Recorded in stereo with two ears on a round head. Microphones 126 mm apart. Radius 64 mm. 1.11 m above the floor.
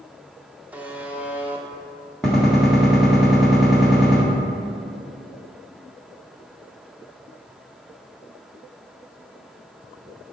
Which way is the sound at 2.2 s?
5° left (ahead or behind).